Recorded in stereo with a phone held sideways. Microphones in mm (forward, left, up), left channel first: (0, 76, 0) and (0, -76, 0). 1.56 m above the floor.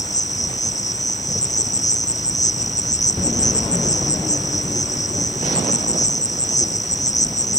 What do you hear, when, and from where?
0.0 s an insect: 55° left (ahead or behind)